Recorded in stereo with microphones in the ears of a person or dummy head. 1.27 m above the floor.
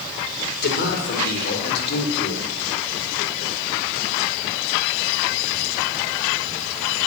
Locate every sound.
0.6 s a man speaking: 55° left (ahead or behind), 5 m; by 2.4 s 60° left (ahead or behind), 4 m